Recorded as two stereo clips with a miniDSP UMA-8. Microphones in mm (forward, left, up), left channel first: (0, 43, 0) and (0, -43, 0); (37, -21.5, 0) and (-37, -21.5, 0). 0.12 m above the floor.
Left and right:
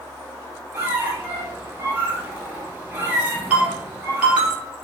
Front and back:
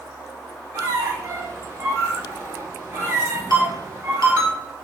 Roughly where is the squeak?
Behind right.